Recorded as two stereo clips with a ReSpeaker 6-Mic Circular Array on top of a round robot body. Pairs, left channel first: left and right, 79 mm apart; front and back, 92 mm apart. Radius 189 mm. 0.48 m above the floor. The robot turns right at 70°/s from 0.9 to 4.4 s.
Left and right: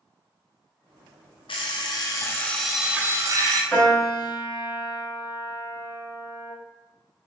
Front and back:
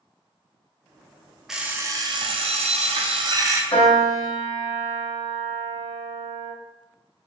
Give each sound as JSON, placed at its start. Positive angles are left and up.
{"t": 1.5, "sound": "an alarm clock", "azimuth_deg": 95, "distance_m": 0.5}
{"t": 3.7, "sound": "a piano", "azimuth_deg": 15, "distance_m": 1.7}